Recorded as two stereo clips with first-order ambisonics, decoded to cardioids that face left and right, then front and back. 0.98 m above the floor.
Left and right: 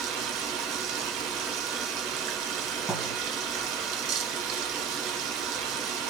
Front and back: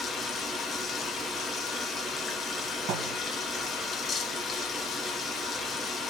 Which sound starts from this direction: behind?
A thud, at 2.9 s.